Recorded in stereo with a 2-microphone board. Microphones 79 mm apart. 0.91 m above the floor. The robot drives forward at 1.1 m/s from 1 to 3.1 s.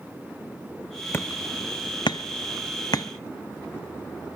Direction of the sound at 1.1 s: 35° left (ahead or behind).